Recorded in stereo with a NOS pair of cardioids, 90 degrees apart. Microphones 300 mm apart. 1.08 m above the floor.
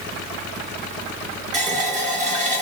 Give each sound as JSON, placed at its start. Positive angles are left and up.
{"t": 1.5, "sound": "a running tap", "azimuth_deg": -25, "distance_m": 1.9}